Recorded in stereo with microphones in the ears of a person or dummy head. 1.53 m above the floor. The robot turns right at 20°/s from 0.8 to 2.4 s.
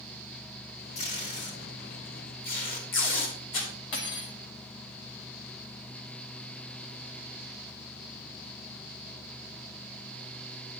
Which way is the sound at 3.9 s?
65° left (ahead or behind).